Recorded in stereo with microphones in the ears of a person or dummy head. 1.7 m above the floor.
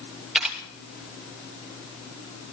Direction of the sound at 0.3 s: Centre (ahead or behind).